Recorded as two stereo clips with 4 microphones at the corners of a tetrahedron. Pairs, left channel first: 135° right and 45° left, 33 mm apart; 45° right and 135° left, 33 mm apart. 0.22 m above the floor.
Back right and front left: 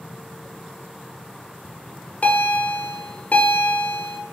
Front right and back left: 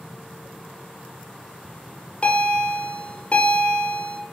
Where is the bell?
100° right, 2 m.